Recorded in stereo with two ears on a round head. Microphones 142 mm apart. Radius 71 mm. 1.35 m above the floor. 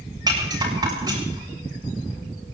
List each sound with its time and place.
0.3 s a rattle: 25° right (ahead or behind), 7 m